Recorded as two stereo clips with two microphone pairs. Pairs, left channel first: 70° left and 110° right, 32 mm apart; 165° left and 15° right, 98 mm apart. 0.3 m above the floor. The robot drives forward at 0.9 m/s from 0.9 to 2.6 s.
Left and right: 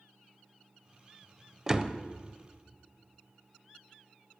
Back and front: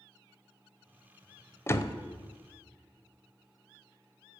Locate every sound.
1.7 s a door slam: 155° right, 0.6 m; by 2.0 s 165° right, 0.8 m